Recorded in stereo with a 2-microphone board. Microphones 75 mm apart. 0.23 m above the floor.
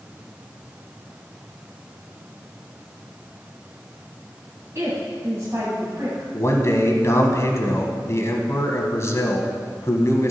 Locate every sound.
4.8 s a woman speaking: 40° right (ahead or behind), 1.9 m
6.3 s a man speaking: 40° left (ahead or behind), 1.3 m